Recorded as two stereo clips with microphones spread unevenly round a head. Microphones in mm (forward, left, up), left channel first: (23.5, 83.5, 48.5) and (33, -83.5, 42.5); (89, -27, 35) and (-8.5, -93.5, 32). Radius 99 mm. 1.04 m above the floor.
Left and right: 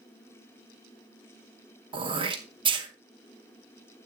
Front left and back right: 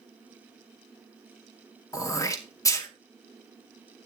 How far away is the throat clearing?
About 2.5 m.